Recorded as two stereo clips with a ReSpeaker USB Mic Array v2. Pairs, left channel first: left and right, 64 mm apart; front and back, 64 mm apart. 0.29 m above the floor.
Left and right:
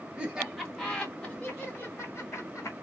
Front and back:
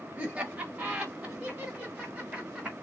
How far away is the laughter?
About 1.2 m.